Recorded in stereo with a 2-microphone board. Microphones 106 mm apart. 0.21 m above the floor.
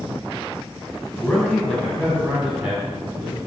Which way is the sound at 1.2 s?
15° left (ahead or behind).